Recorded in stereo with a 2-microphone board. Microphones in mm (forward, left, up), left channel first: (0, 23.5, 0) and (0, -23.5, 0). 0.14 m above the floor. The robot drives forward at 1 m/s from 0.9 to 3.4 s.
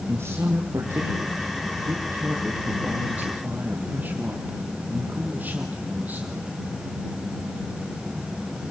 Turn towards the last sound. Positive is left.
turn(degrees=-35)  # may be behind; listen again after turning